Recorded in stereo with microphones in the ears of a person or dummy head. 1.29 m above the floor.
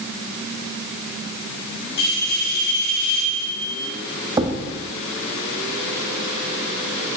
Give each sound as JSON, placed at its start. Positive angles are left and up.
{"t": 2.0, "sound": "a bell", "side_deg": 65, "distance_m": 3.5}
{"t": 4.4, "sound": "a thud", "side_deg": -20, "distance_m": 1.1}